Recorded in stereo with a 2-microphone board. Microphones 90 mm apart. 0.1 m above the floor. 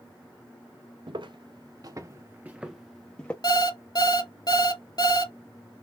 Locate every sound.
1.1 s footsteps: 70° right (ahead or behind), 1.0 m; by 3.3 s 15° left (ahead or behind), 0.9 m
3.4 s an alarm clock: 50° left (ahead or behind), 0.6 m